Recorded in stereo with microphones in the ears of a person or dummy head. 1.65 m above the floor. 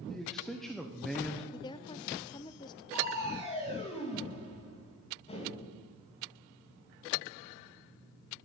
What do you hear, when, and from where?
0.1 s a man speaking: 5° left (ahead or behind), 1.1 m
1.5 s a woman speaking: 20° left (ahead or behind), 0.6 m
2.9 s crushing: 30° left (ahead or behind), 2.5 m